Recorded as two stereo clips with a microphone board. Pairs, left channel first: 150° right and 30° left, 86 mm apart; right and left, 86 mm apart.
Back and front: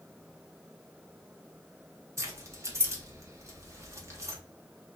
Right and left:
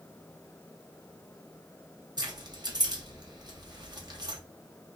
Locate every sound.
2.2 s keys jangling: 75° left, 0.8 m